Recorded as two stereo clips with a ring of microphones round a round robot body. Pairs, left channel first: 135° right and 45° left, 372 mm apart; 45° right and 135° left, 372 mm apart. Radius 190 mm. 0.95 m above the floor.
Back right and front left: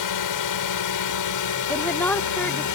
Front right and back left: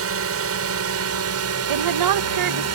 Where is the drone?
170° right; by 2.8 s 175° right.